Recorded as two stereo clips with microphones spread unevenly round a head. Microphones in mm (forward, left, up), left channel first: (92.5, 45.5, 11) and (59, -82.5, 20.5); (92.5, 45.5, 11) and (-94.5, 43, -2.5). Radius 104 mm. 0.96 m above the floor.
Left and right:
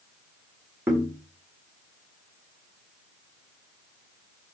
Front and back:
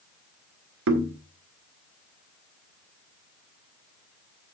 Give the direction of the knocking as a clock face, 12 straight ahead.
6 o'clock.